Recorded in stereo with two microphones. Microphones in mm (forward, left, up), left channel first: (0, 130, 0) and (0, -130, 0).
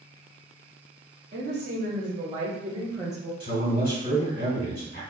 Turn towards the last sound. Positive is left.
turn(degrees=35)  # may be behind; listen again after turning